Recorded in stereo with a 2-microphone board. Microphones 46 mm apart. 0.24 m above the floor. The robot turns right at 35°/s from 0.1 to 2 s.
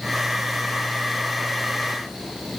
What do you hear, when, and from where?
Only background noise.